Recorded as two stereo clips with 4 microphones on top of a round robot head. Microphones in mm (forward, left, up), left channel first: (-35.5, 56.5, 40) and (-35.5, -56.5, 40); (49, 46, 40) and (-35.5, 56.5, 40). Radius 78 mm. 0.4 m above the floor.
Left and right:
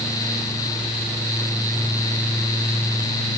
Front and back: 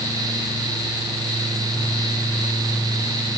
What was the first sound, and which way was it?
Only background noise.